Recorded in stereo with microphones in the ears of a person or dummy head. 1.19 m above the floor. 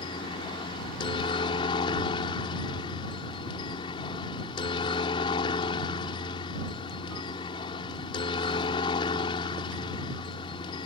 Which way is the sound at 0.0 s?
25° left (ahead or behind).